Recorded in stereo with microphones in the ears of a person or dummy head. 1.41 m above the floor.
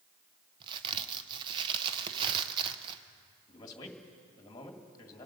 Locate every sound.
0.6 s a crack: 25° right (ahead or behind), 0.8 m
3.5 s a man speaking: 25° left (ahead or behind), 2.5 m